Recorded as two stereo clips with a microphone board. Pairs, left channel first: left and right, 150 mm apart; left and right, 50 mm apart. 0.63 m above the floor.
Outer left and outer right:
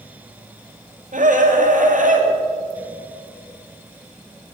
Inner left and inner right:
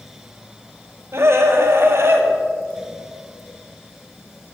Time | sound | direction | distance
1.1 | a scream | 60° right (ahead or behind) | 2.5 m